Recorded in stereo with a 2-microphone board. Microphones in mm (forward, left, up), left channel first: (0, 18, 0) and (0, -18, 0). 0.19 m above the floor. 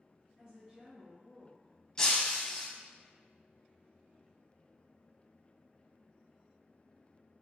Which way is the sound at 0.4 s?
20° right (ahead or behind).